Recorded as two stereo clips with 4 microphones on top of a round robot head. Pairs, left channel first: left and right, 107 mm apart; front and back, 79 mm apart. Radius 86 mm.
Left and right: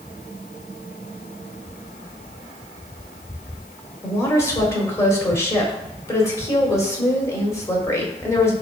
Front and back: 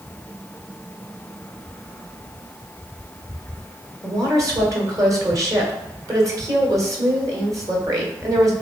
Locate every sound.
4.0 s a woman speaking: 150° left, 1.7 m